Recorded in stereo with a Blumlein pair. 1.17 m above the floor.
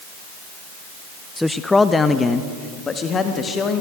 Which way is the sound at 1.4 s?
Straight ahead.